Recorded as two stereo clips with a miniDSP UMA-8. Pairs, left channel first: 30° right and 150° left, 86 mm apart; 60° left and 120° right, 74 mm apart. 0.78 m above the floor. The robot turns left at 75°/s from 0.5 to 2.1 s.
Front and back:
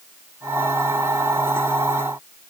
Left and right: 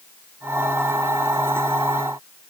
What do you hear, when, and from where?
Only background noise.